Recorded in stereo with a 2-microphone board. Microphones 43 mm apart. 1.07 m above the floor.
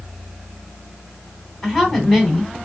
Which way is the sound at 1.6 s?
5° left (ahead or behind).